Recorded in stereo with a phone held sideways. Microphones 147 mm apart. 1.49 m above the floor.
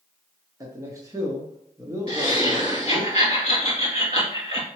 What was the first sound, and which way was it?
A man speaking, 25° right (ahead or behind).